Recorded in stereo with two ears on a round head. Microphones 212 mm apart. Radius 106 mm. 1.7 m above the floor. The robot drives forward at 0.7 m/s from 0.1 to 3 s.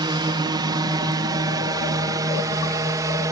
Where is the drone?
20° right (ahead or behind); by 3.3 s 15° right (ahead or behind).